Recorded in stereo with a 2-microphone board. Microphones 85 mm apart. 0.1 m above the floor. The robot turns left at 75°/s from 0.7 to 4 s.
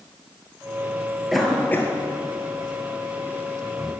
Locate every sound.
1.3 s a cough: 5° right (ahead or behind), 1.6 m; by 3.9 s 10° right (ahead or behind), 1.6 m